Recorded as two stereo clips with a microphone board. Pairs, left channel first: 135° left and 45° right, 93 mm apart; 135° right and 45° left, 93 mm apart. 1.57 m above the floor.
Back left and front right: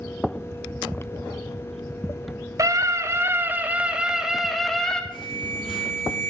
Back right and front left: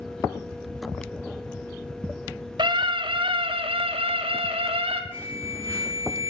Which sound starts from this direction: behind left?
An alarm, at 5.1 s.